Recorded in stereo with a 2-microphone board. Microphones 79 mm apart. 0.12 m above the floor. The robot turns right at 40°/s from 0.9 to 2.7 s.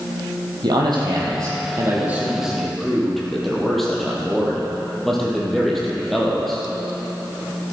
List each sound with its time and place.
0.6 s a man speaking: 70° right, 3.5 m; by 6.7 s 5° left, 3.5 m